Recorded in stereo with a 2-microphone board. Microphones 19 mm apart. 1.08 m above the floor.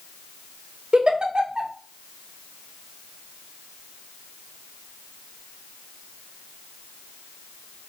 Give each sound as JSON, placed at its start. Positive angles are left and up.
{"t": 0.9, "sound": "a giggle", "side_deg": -50, "distance_m": 0.6}